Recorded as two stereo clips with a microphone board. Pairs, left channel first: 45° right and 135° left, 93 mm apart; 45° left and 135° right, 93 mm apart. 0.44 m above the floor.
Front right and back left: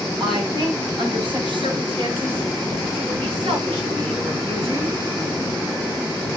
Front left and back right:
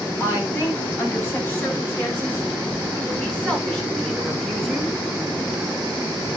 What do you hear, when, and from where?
0.2 s a woman speaking: 105° left, 8.5 m; by 5.0 s 140° left, 5 m